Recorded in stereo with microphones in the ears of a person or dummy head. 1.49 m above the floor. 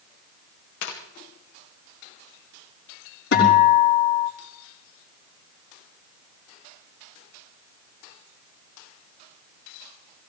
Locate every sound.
0.8 s tearing paper: 75° left (ahead or behind), 2.5 m
3.3 s a guitar: 65° left (ahead or behind), 4.5 m